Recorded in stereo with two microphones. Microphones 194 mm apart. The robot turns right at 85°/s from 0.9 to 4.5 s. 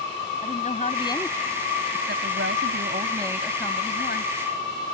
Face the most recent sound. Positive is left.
turn(degrees=90)